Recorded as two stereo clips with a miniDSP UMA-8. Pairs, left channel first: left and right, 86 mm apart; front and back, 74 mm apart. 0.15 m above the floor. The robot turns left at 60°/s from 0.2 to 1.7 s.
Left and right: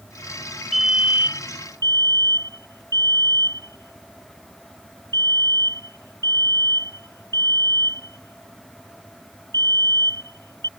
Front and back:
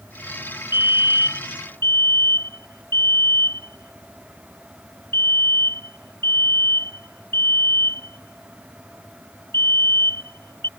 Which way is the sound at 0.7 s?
Straight ahead.